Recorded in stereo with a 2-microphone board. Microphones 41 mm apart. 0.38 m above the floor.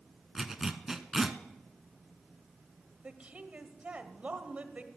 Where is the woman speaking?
35° right (ahead or behind), 1.3 m.